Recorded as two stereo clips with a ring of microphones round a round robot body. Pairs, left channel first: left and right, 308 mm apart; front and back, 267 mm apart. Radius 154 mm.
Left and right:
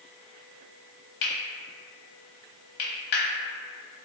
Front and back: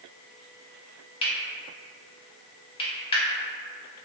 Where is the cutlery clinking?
70° left, 0.8 m.